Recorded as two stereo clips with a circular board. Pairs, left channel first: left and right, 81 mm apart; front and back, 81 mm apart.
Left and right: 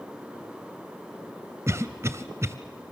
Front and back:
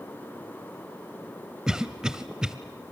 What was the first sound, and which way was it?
A cough, 105° right.